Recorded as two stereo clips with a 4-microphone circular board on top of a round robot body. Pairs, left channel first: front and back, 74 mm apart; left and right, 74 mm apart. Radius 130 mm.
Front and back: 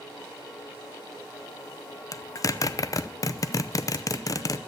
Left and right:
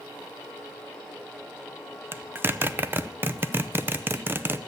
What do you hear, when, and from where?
2.1 s a zipper: 35° right, 0.9 m